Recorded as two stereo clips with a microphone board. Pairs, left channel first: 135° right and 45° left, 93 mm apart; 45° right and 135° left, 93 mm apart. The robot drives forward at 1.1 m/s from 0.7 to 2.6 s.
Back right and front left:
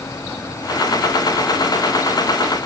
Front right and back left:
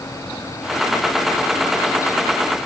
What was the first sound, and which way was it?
Only background noise.